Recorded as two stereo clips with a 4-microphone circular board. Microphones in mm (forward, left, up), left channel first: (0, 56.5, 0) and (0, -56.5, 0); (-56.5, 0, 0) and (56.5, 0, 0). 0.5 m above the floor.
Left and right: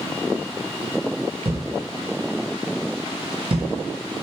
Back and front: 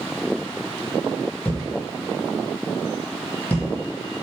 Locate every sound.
1.4 s a thud: 105° right, 0.8 m